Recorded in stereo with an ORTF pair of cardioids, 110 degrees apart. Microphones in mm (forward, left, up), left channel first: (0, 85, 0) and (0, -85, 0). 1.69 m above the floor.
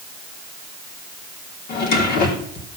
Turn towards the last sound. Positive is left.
turn(degrees=65)